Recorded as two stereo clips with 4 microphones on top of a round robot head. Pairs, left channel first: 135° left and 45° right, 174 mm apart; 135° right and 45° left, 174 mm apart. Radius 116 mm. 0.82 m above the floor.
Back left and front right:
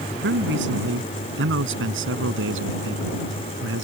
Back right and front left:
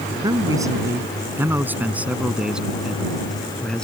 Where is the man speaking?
25° right; by 3.9 s 50° right.